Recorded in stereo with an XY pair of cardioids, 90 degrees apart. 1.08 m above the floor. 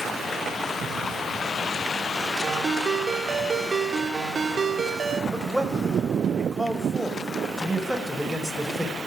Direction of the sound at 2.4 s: 40° right.